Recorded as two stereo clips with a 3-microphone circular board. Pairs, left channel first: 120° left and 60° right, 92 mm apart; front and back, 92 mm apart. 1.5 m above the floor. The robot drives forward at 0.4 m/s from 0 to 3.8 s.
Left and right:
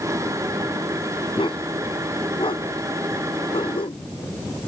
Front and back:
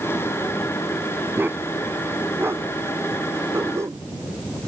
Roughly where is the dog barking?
Behind left.